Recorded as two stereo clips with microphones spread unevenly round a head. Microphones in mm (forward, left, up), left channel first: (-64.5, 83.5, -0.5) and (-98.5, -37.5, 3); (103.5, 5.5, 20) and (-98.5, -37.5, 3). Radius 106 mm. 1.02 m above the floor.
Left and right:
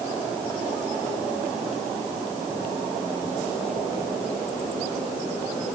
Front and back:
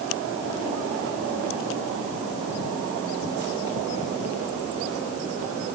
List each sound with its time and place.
Only background noise.